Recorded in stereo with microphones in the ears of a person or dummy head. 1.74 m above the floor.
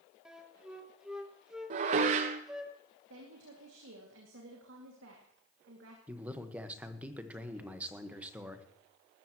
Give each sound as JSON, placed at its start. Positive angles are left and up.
{"t": 0.2, "sound": "a flute", "side_deg": -5, "distance_m": 1.3}
{"t": 1.7, "sound": "dishes clattering", "side_deg": -40, "distance_m": 1.2}
{"t": 3.1, "sound": "a woman speaking", "side_deg": -70, "distance_m": 2.5}
{"t": 6.1, "sound": "a man speaking", "side_deg": -10, "distance_m": 1.3}